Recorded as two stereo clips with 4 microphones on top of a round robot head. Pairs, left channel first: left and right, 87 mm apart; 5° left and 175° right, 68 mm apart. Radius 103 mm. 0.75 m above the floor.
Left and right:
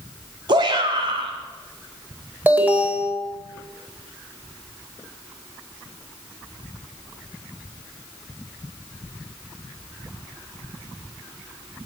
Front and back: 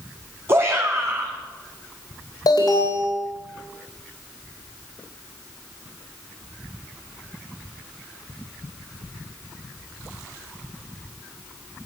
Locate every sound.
0.5 s a shout: 120° right, 1.8 m
2.5 s an alarm: 20° right, 4 m